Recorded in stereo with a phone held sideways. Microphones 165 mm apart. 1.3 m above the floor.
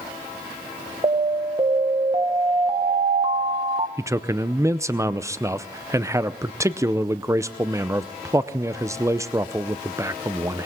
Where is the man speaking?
20° right (ahead or behind), 0.6 m.